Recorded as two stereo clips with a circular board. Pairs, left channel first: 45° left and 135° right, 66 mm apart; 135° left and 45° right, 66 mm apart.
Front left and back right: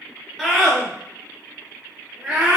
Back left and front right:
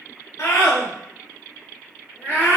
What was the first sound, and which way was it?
A scream, 140° left.